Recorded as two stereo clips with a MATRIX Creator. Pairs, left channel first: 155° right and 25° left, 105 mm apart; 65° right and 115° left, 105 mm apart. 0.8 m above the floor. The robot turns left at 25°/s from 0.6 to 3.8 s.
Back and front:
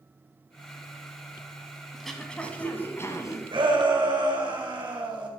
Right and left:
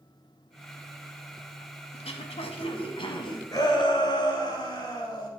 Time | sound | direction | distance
1.9 | throat clearing | 70° right | 1.3 m
3.5 | a shout | 10° right | 2.5 m